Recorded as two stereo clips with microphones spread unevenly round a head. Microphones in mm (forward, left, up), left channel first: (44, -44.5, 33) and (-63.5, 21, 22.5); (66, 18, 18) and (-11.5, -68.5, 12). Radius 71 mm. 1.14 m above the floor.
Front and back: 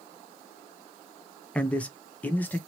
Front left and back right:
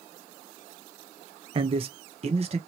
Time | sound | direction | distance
1.6 | a man speaking | 115° right | 0.6 m